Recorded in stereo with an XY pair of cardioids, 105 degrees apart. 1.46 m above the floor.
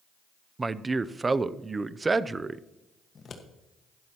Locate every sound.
0.6 s a man speaking: 25° right, 0.5 m
3.1 s scissors: 45° left, 1.5 m